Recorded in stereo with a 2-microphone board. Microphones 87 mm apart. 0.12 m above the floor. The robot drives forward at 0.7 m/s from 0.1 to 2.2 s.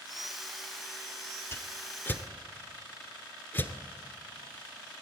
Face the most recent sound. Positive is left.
turn(degrees=25)  # may be behind; listen again after turning